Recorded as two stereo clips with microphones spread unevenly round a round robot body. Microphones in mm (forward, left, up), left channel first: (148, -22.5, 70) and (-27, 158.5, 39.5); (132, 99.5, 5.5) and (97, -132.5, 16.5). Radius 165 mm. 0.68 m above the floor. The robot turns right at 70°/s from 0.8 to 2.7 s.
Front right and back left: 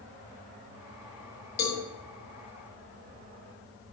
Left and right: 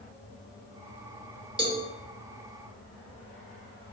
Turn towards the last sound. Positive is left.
turn(degrees=50)